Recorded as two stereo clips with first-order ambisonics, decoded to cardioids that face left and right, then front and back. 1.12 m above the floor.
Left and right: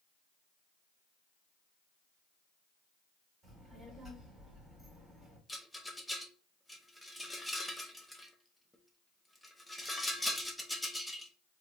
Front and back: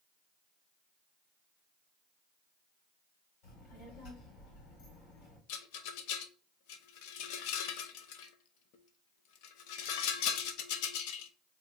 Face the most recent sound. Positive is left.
turn(degrees=5)